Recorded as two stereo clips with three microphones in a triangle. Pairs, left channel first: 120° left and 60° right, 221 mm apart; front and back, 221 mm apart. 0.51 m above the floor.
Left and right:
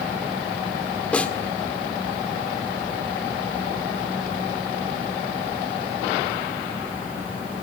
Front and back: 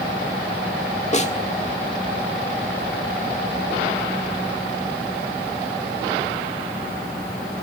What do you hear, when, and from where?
1.1 s a snare drum: 40° left, 1.6 m